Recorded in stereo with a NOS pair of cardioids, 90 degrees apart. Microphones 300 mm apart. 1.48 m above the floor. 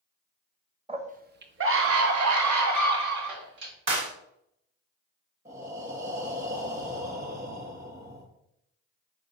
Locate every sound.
0.9 s a scream: 20° right, 1.0 m; by 3.7 s 75° right, 2.5 m
3.9 s a clap: 40° right, 1.9 m
5.5 s breathing: 25° right, 1.7 m